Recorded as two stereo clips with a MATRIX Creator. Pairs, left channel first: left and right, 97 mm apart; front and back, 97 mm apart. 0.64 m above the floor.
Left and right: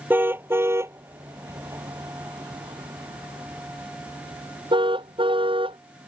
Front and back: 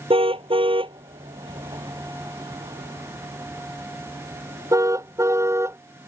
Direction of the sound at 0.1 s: 160° right.